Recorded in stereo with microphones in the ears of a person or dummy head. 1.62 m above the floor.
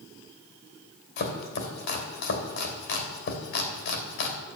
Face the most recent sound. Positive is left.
turn(degrees=60)  # may be behind; listen again after turning